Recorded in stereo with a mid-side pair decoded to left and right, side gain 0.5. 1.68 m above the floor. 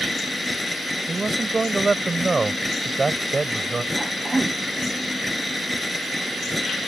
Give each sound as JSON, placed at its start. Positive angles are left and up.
{"t": 0.0, "sound": "a machine running", "azimuth_deg": 10}
{"t": 1.1, "sound": "a man speaking", "azimuth_deg": -25}
{"t": 3.9, "sound": "a cough", "azimuth_deg": -15}